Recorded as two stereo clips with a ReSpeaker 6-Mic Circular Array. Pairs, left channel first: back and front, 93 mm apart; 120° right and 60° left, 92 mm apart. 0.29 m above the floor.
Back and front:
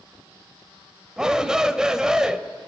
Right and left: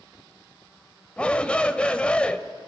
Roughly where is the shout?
Right.